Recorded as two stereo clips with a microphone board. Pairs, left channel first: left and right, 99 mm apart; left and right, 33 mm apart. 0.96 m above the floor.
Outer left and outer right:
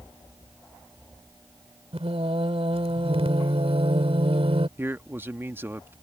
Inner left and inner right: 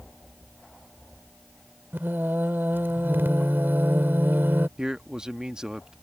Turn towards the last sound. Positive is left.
turn(degrees=-25)  # may be behind; listen again after turning